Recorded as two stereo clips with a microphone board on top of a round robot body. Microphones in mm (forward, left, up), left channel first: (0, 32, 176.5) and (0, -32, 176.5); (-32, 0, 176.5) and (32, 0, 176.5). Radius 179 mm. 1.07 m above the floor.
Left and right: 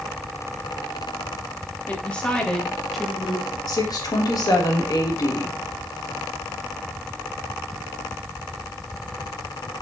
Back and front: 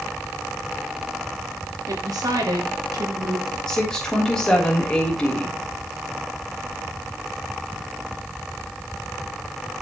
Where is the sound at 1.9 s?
20° left, 3 m; by 3.6 s 15° right, 2.5 m.